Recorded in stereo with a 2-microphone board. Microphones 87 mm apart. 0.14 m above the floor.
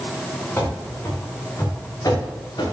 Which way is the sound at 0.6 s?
25° left (ahead or behind).